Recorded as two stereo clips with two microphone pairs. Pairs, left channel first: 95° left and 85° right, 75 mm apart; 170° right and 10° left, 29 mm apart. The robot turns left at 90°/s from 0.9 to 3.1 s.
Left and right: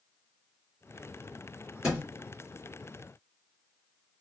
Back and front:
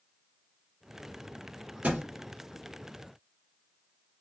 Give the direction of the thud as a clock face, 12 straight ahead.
12 o'clock.